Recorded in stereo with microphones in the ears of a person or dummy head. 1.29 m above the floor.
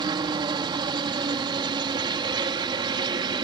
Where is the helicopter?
25° right (ahead or behind).